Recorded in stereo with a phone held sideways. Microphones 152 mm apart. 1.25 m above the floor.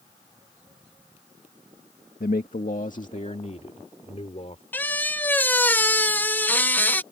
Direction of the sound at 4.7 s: 10° left (ahead or behind).